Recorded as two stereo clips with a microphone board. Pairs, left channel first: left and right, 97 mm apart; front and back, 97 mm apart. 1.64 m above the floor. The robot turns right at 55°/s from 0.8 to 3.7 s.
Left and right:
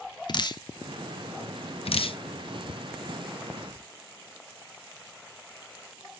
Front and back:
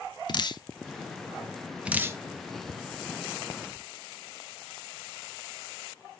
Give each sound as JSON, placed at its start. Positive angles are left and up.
{"t": 0.3, "sound": "dripping", "azimuth_deg": 45, "distance_m": 0.8}